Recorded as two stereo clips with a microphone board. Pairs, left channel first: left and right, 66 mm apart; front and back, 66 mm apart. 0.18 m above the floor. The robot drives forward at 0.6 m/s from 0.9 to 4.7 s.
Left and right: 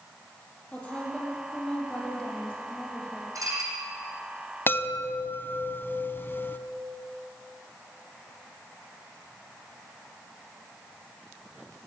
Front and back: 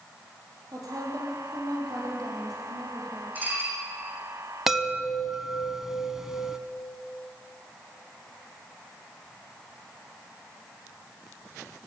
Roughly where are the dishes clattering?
Behind right.